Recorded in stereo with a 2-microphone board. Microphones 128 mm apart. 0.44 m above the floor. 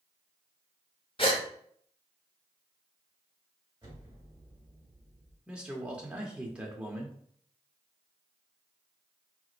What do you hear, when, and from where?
1.2 s a gasp: 45° left (ahead or behind), 0.8 m
3.8 s an explosion: 35° right (ahead or behind), 1.9 m
5.5 s a man speaking: 10° right (ahead or behind), 0.8 m